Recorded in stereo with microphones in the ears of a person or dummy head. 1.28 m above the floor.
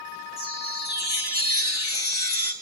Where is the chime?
25° left (ahead or behind), 1.0 m.